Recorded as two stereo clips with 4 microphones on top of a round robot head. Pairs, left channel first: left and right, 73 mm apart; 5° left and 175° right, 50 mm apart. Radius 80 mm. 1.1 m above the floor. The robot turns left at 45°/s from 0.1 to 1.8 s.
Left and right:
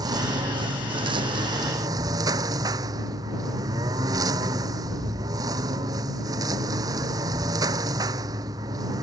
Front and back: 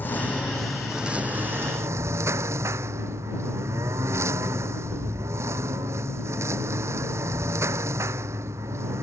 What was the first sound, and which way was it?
A lawn mower, 55° right.